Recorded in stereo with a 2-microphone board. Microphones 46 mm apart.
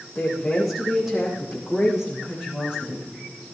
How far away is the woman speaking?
About 5.5 m.